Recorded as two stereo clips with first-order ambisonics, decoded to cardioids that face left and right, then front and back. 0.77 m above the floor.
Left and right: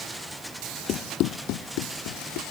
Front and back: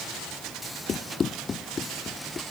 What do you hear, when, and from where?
0.9 s running footsteps: 60° left; by 2.4 s 75° left